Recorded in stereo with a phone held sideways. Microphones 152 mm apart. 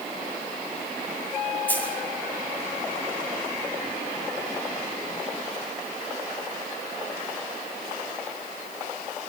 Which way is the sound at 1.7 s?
10° left (ahead or behind).